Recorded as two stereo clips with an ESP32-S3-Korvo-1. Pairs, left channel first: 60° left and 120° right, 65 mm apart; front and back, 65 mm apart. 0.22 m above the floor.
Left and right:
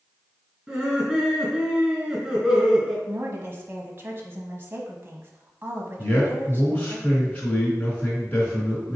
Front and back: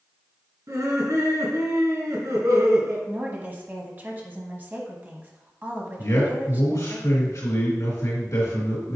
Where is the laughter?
165° left, 3 m.